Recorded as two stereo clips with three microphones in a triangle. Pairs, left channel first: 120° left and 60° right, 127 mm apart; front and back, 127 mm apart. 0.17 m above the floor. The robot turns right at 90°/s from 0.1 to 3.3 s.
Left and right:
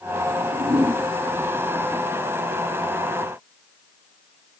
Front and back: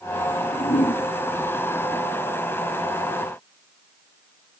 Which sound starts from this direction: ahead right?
A whoosh, at 0.3 s.